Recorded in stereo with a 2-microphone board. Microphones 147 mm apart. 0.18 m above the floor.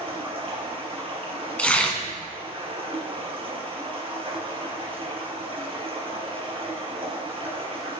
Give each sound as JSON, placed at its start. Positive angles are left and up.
{"t": 0.0, "sound": "running water", "side_deg": -40, "distance_m": 3.5}
{"t": 1.6, "sound": "tearing paper", "side_deg": 10, "distance_m": 1.7}